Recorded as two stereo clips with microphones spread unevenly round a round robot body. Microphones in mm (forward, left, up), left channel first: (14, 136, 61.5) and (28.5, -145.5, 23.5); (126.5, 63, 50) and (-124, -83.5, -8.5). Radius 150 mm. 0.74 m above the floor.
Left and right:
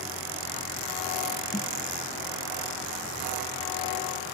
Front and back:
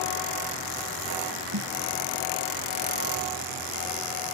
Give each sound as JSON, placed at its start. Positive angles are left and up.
{"t": 1.5, "sound": "a snare drum", "azimuth_deg": 170}